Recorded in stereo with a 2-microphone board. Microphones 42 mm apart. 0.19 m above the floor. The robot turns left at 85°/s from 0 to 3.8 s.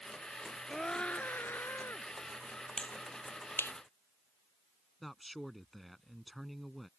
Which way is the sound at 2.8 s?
25° left (ahead or behind).